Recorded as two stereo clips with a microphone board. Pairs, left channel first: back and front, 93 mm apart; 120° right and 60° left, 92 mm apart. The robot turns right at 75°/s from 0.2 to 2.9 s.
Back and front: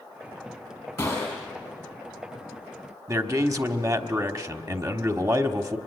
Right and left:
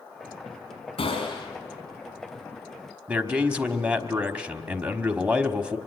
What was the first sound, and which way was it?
A gunshot, 130° right.